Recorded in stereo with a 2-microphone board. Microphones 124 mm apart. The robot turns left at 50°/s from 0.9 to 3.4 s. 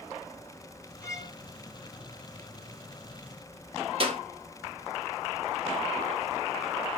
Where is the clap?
45° right (ahead or behind), 3.5 m.